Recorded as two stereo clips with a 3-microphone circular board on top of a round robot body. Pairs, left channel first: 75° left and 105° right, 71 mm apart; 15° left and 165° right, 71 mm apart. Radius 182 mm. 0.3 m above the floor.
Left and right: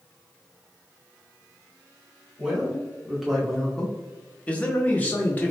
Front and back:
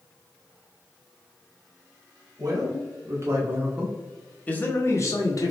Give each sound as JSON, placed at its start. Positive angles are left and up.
{"t": 2.4, "sound": "a man speaking", "azimuth_deg": 175, "distance_m": 1.4}